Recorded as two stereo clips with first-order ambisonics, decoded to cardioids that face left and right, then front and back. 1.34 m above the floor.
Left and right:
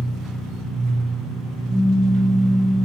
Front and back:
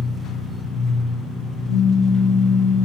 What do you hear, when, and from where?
0.0 s an engine running: 40° right, 3 m
1.7 s a pop: 5° left, 1.0 m